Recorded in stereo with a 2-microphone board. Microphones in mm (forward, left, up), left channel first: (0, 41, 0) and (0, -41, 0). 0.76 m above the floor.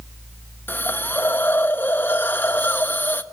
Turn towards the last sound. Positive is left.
turn(degrees=25)  # may be behind; listen again after turning